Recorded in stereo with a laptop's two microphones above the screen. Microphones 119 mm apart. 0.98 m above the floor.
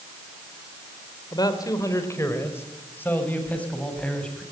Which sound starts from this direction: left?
A man speaking, at 1.3 s.